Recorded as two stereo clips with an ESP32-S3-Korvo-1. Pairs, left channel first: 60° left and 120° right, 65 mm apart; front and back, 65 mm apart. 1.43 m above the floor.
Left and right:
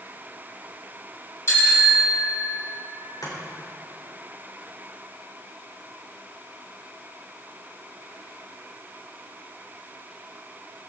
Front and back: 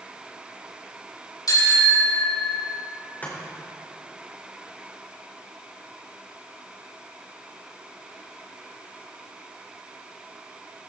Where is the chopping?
60° left, 5 m.